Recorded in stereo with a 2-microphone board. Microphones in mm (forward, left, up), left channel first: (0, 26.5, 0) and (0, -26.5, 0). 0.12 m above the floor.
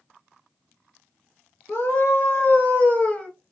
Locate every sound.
1.7 s a scream: 45° left (ahead or behind), 2.5 m; by 3.3 s 15° left (ahead or behind), 1.8 m